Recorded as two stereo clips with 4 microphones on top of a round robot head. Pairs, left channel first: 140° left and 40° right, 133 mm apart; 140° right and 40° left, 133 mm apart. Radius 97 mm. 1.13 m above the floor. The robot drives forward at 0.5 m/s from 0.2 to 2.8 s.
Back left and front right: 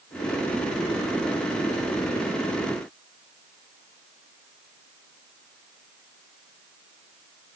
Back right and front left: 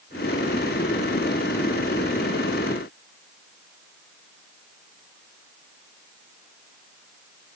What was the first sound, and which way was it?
Only background noise.